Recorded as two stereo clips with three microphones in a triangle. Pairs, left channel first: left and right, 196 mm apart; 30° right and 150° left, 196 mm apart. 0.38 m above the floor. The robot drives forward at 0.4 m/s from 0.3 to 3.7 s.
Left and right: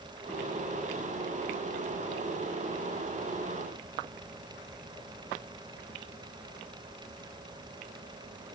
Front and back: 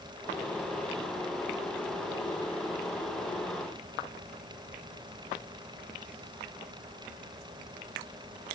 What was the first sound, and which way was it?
Only background noise.